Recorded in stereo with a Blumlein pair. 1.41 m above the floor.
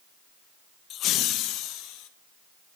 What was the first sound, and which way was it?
Laughter, 30° left.